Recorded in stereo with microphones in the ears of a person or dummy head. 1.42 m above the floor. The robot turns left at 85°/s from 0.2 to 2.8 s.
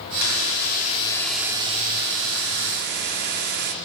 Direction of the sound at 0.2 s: 95° left.